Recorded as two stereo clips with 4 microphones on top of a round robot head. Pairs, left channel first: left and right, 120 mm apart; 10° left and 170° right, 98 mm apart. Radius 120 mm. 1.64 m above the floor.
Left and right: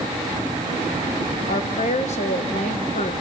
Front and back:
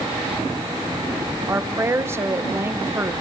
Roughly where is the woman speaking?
Behind left.